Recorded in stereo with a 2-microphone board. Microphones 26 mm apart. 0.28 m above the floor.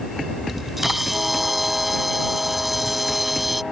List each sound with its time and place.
0.5 s a camera shutter: 10° right (ahead or behind)